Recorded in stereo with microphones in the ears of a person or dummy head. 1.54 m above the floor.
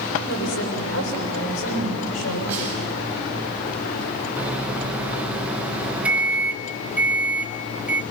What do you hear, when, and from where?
0.3 s a woman speaking: 85° left, 6 m
2.5 s a snare drum: 10° right (ahead or behind), 10 m
4.4 s a microwave: 10° right (ahead or behind), 1.1 m